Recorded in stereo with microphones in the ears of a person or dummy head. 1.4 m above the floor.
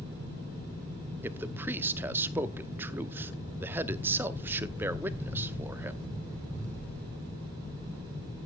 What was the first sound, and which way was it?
A man speaking, 15° right (ahead or behind).